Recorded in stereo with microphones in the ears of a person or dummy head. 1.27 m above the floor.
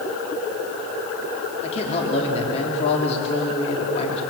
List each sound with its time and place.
1.6 s a man speaking: 30° left (ahead or behind), 3.5 m